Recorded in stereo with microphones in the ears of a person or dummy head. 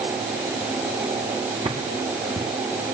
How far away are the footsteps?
About 4.5 m.